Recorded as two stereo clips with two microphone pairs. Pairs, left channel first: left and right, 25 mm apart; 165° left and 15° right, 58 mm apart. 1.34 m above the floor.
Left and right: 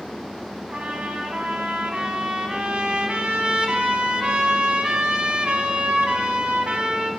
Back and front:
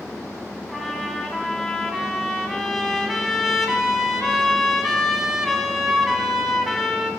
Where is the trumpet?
105° right, 1.7 m.